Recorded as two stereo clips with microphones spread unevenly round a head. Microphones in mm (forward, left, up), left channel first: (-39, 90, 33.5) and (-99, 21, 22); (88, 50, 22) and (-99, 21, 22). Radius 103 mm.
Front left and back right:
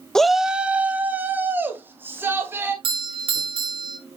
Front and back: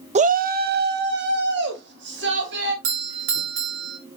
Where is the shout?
130° left, 0.6 m; by 2.7 s 160° left, 3 m.